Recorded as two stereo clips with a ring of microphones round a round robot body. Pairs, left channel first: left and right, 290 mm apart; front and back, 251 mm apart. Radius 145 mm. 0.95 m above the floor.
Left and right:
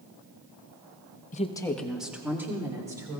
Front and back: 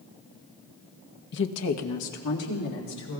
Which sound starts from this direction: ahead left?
A woman speaking, at 1.3 s.